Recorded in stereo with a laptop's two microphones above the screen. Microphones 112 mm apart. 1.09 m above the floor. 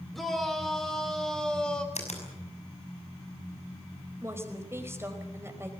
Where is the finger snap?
80° left, 5.5 m.